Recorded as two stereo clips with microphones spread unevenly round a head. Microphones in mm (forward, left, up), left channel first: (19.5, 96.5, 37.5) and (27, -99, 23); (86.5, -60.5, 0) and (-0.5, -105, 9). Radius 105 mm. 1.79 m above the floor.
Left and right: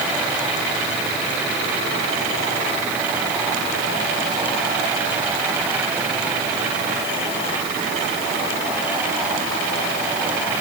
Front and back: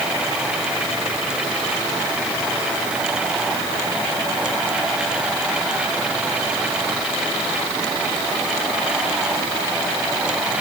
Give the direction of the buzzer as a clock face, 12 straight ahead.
No buzzer in this recording.